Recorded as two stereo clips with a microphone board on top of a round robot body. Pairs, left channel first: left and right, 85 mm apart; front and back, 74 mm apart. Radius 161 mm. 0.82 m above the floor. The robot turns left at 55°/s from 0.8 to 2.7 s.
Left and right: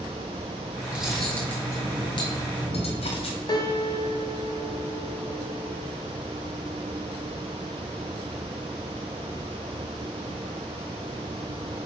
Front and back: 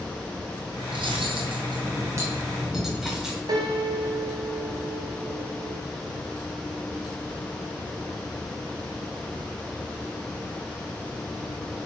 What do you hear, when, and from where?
0.9 s cutlery clinking: 165° right, 2 m; by 3.4 s 95° left, 2 m
3.5 s a piano: 140° left, 1.1 m